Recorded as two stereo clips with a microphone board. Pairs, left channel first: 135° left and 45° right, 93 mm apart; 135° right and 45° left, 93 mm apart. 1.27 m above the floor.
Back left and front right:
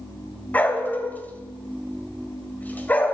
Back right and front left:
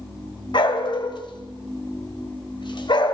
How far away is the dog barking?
About 2.0 m.